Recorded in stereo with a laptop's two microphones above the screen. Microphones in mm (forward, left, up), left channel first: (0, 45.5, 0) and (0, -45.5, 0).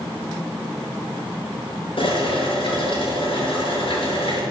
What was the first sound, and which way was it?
Boiling, 70° left (ahead or behind).